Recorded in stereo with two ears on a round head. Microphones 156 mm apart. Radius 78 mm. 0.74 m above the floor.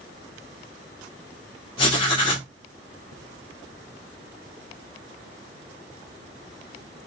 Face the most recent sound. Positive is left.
turn(degrees=30)  # may be behind; listen again after turning